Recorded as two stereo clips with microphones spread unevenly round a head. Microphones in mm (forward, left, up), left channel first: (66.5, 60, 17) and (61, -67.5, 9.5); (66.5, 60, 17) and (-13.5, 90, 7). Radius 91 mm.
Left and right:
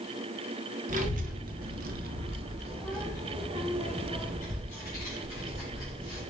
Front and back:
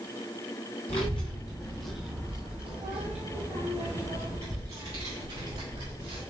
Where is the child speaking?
70° right, 1.1 m; by 6.2 s 160° left, 2.5 m.